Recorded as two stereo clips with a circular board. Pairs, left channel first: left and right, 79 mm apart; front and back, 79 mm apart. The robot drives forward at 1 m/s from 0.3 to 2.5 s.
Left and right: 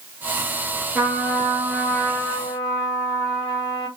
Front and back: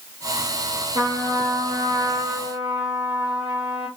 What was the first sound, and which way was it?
A trumpet, straight behind.